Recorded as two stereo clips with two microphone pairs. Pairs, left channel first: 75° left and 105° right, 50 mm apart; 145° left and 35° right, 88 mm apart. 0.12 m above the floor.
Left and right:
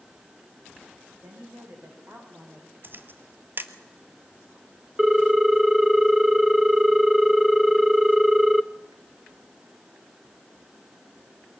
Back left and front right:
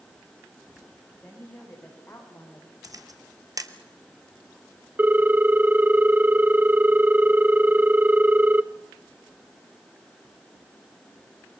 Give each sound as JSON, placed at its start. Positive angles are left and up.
{"t": 1.2, "sound": "a woman speaking", "azimuth_deg": -145, "distance_m": 6.0}
{"t": 2.8, "sound": "a camera shutter", "azimuth_deg": -70, "distance_m": 1.2}
{"t": 5.0, "sound": "a ringtone", "azimuth_deg": -30, "distance_m": 0.5}